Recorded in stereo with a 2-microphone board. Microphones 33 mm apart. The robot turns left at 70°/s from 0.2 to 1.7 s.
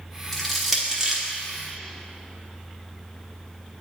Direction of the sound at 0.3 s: 10° left (ahead or behind).